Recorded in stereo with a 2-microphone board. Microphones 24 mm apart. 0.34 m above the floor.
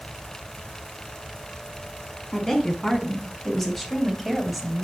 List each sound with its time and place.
2.3 s a woman speaking: 15° left (ahead or behind), 4 m; by 4.8 s 10° right (ahead or behind), 1.9 m